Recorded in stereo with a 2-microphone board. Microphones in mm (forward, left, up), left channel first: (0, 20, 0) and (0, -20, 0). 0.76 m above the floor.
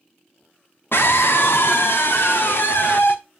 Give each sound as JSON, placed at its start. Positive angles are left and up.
{"t": 0.9, "sound": "a scream", "side_deg": 65, "distance_m": 1.2}